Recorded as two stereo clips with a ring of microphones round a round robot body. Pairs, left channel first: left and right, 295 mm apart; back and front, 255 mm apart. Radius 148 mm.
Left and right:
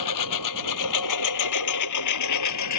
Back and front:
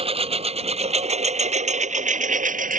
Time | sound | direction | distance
0.0 | a lawn mower | 65° left | ?